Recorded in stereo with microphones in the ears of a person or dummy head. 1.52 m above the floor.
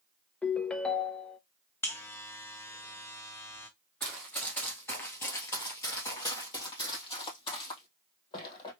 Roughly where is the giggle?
I don't hear a giggle.